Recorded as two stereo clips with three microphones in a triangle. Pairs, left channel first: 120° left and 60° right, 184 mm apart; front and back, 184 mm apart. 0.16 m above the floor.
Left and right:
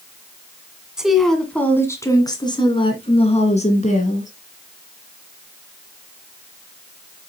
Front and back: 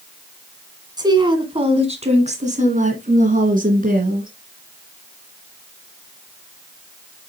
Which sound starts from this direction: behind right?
A woman speaking, at 1.0 s.